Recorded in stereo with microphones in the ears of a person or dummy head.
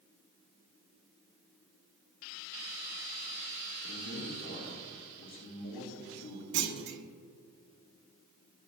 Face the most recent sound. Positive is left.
turn(degrees=-60)  # may be behind; listen again after turning